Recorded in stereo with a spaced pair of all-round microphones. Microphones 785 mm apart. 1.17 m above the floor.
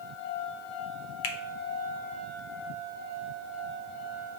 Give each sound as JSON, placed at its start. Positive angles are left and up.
{"t": 1.2, "sound": "a finger snap", "side_deg": 75, "distance_m": 0.7}